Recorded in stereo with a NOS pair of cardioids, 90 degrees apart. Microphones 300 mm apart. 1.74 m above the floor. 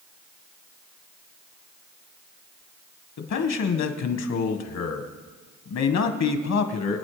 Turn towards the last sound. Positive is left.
turn(degrees=60)